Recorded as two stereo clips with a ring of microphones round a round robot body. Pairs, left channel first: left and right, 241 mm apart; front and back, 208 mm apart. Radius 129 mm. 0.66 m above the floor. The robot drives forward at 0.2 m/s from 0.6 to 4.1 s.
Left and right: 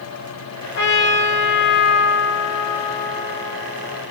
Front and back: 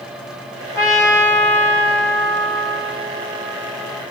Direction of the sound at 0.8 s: 70° left.